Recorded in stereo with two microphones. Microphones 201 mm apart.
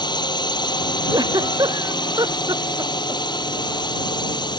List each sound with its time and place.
0.0 s a drone: 20° left (ahead or behind)
1.1 s a giggle: 20° right (ahead or behind)